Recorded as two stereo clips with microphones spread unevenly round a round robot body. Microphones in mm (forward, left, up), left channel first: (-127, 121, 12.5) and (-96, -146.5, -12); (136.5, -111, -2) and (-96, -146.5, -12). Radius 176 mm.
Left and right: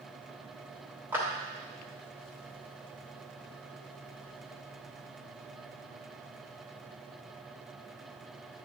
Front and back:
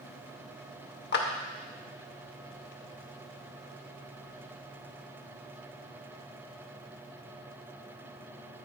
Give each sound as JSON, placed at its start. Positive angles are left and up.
{"t": 1.1, "sound": "a clap", "azimuth_deg": -5, "distance_m": 0.9}